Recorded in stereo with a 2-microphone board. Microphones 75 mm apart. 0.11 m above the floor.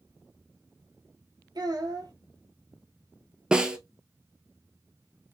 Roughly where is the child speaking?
Right.